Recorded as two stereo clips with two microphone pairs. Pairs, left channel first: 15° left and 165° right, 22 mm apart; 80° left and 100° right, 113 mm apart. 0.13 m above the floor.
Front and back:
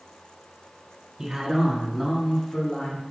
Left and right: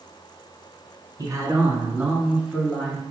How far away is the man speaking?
About 1.9 m.